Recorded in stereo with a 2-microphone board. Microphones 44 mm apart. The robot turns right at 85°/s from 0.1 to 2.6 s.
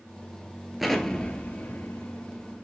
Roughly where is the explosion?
Centre.